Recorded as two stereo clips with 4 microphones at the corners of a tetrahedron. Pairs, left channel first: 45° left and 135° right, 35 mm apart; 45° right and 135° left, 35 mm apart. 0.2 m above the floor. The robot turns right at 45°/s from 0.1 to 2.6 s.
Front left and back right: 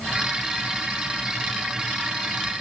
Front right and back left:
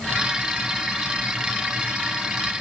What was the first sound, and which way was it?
Only background noise.